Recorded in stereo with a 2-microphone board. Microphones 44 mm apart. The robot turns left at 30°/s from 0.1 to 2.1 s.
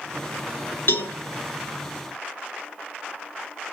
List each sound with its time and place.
0.9 s a cowbell: 55° left (ahead or behind), 1.6 m; by 1.1 s 60° left (ahead or behind), 1.6 m